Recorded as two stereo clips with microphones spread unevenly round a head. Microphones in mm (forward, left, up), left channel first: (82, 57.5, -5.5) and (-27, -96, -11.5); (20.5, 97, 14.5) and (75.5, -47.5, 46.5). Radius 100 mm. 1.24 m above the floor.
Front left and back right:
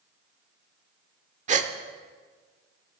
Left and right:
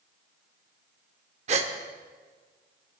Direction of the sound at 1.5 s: 85° right.